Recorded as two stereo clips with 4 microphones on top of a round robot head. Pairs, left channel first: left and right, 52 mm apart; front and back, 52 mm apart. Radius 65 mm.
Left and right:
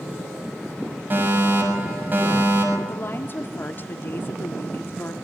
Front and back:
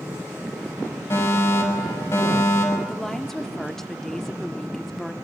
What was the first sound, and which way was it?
A fire alarm, 40° right.